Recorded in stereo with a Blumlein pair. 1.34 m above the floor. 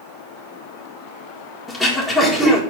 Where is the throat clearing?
5° left, 1.7 m.